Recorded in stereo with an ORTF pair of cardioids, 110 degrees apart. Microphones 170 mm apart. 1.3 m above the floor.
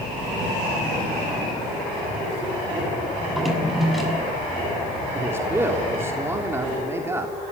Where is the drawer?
Straight ahead, 6.5 m.